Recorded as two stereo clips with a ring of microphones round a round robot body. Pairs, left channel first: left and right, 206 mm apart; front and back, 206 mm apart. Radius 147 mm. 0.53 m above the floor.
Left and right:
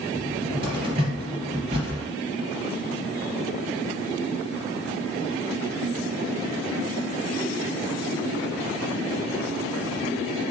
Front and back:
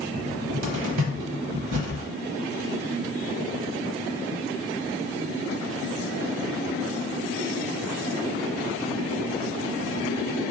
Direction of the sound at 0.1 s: 155° right.